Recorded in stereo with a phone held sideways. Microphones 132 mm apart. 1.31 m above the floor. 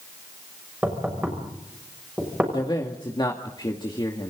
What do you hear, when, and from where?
0.8 s knocking: 10° right (ahead or behind), 6.5 m
2.5 s a man speaking: 35° left (ahead or behind), 2.5 m